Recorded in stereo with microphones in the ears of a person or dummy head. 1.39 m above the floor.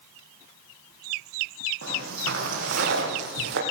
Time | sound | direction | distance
1.8 | footsteps | 70° right (ahead or behind) | 4 m